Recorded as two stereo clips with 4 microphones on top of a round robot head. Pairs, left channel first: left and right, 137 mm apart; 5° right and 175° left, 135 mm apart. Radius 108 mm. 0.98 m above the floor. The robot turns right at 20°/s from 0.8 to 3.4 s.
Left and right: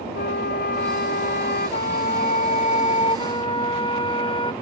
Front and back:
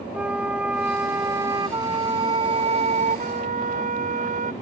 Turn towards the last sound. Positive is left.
turn(degrees=145)